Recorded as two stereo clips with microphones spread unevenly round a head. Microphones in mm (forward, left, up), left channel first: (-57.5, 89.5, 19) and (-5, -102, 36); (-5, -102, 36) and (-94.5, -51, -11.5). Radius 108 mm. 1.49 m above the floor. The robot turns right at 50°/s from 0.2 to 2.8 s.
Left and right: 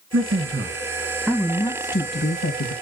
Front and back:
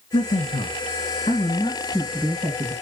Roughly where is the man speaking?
Ahead right.